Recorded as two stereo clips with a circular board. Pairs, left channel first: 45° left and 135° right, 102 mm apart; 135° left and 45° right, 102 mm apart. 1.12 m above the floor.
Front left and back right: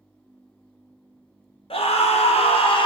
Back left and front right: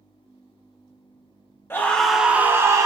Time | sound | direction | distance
1.7 | a scream | 65° left | 0.7 m